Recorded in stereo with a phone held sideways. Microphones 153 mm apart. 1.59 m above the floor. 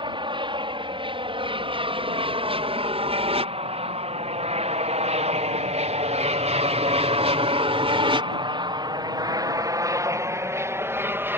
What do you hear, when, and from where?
0.0 s an aircraft: 30° right (ahead or behind); by 11.4 s 15° right (ahead or behind)